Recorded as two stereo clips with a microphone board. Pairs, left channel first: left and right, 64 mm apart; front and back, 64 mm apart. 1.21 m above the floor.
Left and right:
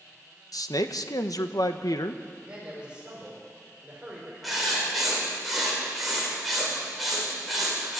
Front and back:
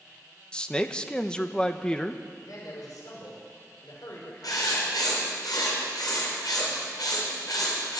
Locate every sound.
0.5 s a man speaking: 75° left, 1.1 m
2.4 s a man speaking: 15° right, 5 m
4.4 s writing: straight ahead, 5.5 m